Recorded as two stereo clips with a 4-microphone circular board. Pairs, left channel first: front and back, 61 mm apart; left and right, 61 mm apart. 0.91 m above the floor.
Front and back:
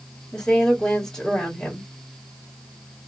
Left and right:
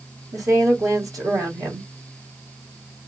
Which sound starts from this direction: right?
A woman speaking, at 0.3 s.